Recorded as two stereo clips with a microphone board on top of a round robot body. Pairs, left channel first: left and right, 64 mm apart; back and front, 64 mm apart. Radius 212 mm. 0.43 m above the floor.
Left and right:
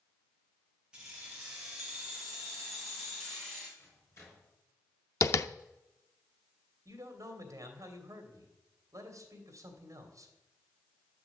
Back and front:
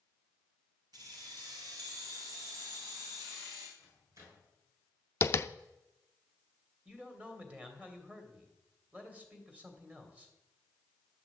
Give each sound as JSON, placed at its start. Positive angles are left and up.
{"t": 0.9, "sound": "keys jangling", "azimuth_deg": -15, "distance_m": 3.5}
{"t": 3.8, "sound": "a microwave", "azimuth_deg": 40, "distance_m": 6.5}
{"t": 5.2, "sound": "tapping", "azimuth_deg": 130, "distance_m": 0.6}
{"t": 6.8, "sound": "a man speaking", "azimuth_deg": -65, "distance_m": 2.5}